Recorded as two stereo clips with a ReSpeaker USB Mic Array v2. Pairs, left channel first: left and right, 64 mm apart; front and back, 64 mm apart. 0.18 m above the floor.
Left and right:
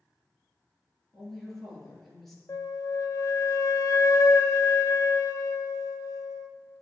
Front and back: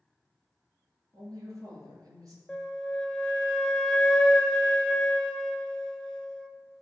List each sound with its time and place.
1.1 s a woman speaking: 175° left, 2.5 m
2.5 s a flute: 75° left, 0.6 m